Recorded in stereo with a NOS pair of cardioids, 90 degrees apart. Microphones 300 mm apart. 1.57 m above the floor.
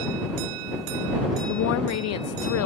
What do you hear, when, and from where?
1.5 s a woman speaking: 60° left